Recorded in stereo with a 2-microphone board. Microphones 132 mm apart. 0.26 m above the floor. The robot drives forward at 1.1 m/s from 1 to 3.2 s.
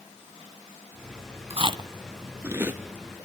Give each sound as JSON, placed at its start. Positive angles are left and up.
{"t": 1.5, "sound": "chewing", "side_deg": -50, "distance_m": 0.6}